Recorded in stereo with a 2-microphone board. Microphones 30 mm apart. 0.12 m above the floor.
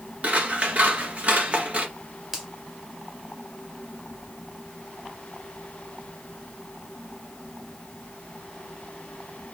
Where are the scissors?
45° right (ahead or behind), 1.5 m.